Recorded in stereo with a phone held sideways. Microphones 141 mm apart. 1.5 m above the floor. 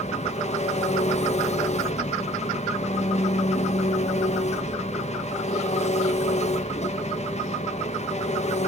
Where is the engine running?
50° left (ahead or behind), 1.4 m.